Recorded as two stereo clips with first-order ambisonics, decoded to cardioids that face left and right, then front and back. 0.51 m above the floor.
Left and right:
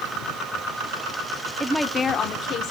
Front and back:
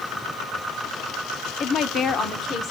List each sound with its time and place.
1.6 s a woman speaking: 30° right, 0.7 m; by 2.7 s 55° left, 1.2 m